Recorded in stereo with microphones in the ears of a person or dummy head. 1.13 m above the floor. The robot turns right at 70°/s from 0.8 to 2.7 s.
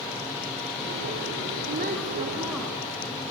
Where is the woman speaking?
65° right, 3 m; by 3.2 s 10° left, 3 m.